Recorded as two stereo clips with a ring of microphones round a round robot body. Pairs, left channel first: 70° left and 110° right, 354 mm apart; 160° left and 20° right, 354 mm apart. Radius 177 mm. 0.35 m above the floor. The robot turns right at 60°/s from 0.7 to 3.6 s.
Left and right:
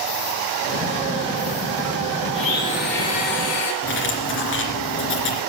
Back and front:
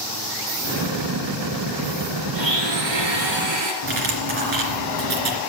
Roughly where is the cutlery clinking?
Ahead.